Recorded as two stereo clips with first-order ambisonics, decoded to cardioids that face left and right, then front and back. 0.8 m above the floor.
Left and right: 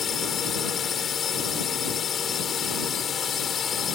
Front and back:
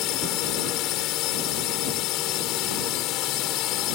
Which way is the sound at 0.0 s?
25° left.